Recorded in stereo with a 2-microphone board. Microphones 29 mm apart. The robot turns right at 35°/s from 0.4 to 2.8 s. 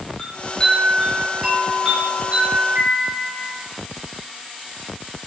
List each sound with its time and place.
0.2 s a chime: 150° left, 1.4 m; by 3.5 s 125° right, 1.4 m